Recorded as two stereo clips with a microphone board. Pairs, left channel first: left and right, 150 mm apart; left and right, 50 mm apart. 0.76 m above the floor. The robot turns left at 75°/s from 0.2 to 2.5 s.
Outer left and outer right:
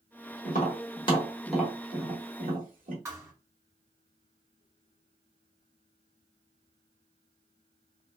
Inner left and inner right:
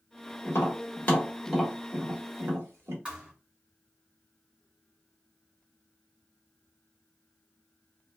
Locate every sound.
0.5 s tapping: 75° left (ahead or behind), 1.5 m; by 3.0 s 70° right (ahead or behind), 1.5 m
3.0 s a thud: 20° right (ahead or behind), 1.5 m